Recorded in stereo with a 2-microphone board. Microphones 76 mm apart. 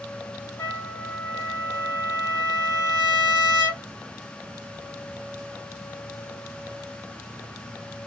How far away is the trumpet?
About 2 m.